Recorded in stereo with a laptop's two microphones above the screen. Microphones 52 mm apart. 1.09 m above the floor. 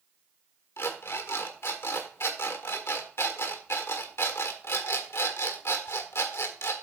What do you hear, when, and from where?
0.8 s an alarm clock: 60° left (ahead or behind), 1.4 m